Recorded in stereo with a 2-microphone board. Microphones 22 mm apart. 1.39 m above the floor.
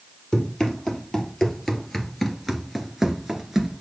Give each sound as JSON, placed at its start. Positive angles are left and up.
{"t": 0.3, "sound": "running footsteps", "side_deg": 25, "distance_m": 2.5}